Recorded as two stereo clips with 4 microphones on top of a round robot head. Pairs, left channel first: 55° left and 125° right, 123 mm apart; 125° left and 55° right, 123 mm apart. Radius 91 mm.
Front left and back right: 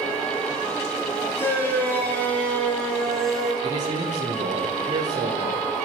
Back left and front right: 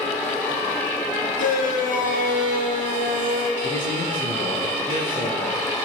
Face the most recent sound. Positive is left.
turn(degrees=180)